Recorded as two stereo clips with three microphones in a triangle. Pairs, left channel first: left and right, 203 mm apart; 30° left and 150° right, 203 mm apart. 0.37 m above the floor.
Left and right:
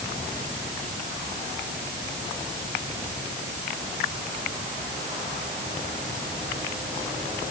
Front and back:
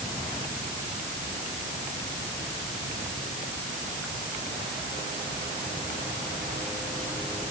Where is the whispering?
I don't hear whispering.